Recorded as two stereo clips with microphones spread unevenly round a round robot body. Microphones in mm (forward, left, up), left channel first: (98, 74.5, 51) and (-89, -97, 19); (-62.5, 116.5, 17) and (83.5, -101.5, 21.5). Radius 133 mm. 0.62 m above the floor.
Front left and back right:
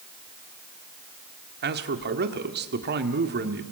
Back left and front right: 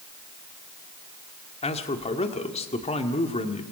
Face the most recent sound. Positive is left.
turn(degrees=-175)